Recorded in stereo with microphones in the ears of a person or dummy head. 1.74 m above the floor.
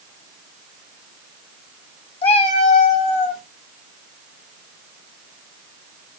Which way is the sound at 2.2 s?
30° left (ahead or behind).